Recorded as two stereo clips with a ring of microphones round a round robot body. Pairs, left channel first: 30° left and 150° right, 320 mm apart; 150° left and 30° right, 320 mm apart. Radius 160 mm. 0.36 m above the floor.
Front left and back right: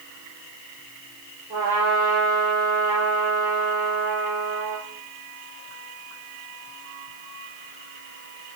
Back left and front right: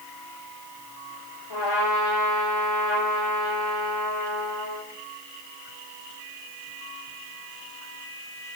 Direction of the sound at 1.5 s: 130° left.